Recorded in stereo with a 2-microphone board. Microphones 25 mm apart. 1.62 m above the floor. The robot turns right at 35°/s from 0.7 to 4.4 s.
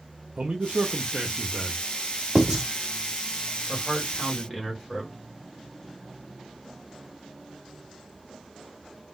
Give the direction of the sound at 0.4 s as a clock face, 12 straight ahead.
4 o'clock.